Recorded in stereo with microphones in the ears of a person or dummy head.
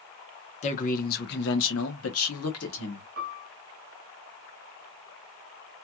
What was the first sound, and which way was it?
A man speaking, 35° left (ahead or behind).